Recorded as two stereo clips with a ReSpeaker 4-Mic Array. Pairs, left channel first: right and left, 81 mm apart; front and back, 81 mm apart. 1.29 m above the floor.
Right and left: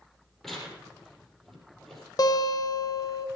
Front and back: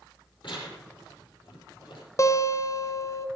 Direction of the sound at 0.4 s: 5° right.